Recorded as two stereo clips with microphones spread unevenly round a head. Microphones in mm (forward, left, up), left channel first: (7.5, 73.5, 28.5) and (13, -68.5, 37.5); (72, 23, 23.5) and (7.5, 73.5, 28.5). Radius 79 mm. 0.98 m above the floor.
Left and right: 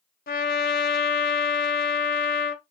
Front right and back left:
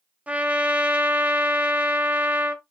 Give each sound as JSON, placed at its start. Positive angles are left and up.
{"t": 0.3, "sound": "a trumpet", "azimuth_deg": 75, "distance_m": 1.1}